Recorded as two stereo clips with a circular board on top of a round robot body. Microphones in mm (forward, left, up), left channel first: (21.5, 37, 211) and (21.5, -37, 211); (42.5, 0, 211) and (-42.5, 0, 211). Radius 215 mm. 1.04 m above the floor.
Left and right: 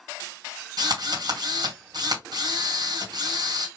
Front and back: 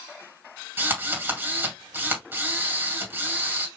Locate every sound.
0.8 s a drill: 115° right, 2.5 m